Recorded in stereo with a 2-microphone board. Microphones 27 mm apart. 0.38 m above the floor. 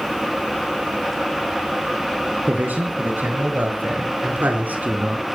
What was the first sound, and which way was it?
A man speaking, 80° right.